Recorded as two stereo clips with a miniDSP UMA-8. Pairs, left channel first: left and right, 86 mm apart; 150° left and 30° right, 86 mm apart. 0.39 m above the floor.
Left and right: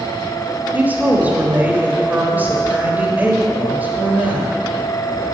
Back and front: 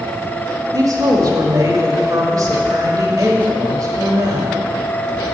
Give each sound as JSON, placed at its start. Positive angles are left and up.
{"t": 0.7, "sound": "a woman speaking", "azimuth_deg": -30, "distance_m": 1.4}